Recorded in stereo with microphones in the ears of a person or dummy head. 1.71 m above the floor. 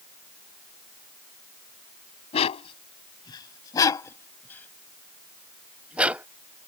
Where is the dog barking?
35° left (ahead or behind); by 6.3 s 10° right (ahead or behind).